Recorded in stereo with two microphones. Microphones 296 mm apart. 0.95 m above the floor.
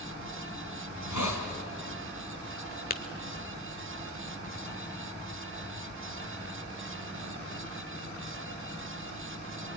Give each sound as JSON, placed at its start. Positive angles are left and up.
{"t": 0.9, "sound": "a hiss", "side_deg": 75, "distance_m": 3.5}
{"t": 2.9, "sound": "tapping", "side_deg": 30, "distance_m": 1.0}